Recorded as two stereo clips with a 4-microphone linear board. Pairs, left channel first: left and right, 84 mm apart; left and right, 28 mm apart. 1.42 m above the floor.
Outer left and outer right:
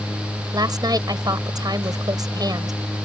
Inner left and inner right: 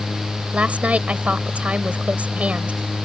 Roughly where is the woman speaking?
Right.